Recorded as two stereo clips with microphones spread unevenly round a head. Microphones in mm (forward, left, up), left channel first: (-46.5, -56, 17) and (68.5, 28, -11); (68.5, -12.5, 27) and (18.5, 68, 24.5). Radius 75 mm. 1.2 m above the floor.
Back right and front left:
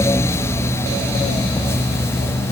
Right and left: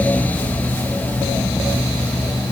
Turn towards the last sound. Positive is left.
No sound to turn to.